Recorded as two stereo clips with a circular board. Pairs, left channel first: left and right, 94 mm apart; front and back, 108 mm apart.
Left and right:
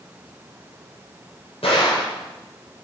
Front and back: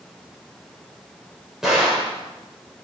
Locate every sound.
1.6 s a gunshot: 95° left, 7.5 m